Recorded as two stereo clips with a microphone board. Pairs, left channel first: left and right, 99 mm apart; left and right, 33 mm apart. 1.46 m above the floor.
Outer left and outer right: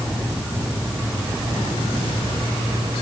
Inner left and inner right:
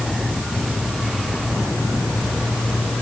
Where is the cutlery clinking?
I don't hear cutlery clinking.